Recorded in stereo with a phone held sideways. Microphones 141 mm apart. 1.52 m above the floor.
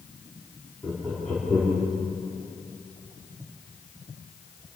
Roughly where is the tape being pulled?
No tape being pulled in this recording.